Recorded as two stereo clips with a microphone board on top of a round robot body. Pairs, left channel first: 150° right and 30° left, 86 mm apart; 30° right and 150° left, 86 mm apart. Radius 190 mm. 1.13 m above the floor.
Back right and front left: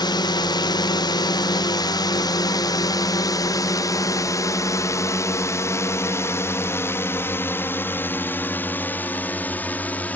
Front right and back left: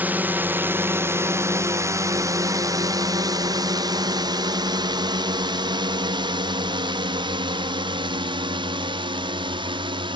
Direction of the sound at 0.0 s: 145° right.